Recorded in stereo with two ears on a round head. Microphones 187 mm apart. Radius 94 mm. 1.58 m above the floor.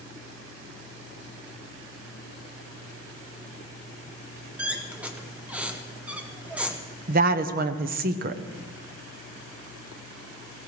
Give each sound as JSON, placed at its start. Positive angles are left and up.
{"t": 4.6, "sound": "a squeak", "side_deg": -5, "distance_m": 0.9}
{"t": 7.1, "sound": "a woman speaking", "side_deg": -45, "distance_m": 0.8}